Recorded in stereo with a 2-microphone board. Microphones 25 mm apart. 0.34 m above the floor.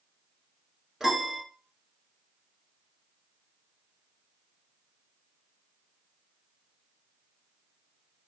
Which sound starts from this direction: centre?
A piano, at 1.0 s.